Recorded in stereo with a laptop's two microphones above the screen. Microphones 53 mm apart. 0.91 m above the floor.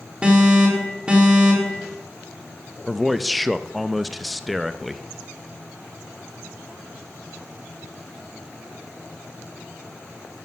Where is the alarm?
20° right (ahead or behind), 4 m.